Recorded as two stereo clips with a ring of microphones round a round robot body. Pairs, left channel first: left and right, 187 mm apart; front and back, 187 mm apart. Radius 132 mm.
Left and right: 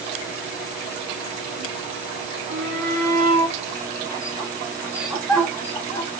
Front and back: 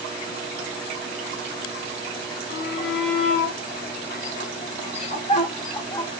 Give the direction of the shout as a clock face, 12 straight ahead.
2 o'clock.